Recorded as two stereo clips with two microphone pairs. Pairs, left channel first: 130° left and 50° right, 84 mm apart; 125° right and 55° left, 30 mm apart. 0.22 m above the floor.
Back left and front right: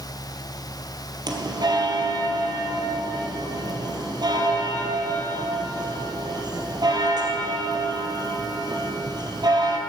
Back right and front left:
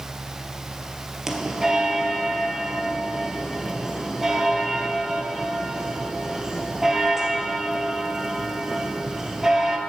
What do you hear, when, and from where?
1.3 s a bell: 15° right, 1.6 m